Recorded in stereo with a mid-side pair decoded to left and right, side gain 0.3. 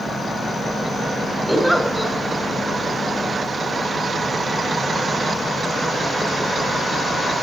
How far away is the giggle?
About 6.5 m.